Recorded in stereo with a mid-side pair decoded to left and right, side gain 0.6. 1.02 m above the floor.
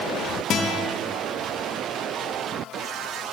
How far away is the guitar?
About 0.8 m.